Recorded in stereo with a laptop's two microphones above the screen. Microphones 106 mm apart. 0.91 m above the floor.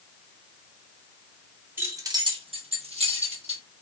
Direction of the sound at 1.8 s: 20° right (ahead or behind).